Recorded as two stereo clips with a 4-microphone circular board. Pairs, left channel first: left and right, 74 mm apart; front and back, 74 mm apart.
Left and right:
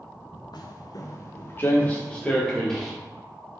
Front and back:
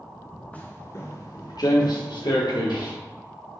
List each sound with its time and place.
0.5 s footsteps: 70° left, 1.3 m; by 3.0 s 5° left, 3 m